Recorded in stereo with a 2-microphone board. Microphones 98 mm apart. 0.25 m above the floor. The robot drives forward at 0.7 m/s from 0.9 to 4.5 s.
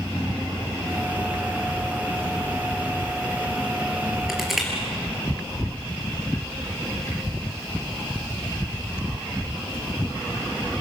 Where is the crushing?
5° right (ahead or behind), 5.5 m.